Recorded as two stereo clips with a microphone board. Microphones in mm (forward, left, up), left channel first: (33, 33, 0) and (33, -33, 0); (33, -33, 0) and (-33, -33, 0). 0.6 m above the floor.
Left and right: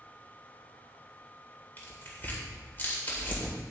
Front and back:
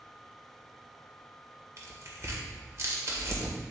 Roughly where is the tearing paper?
Behind left.